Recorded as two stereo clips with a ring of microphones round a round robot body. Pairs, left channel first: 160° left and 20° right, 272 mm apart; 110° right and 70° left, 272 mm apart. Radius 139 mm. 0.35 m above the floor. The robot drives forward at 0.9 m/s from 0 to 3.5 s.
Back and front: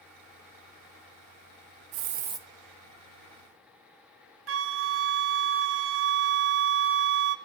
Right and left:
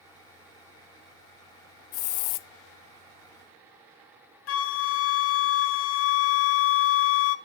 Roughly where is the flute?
Right.